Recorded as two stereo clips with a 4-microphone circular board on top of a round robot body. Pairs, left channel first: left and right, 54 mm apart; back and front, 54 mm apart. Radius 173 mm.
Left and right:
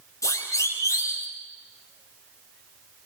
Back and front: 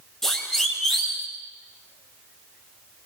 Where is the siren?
95° left, 5 m.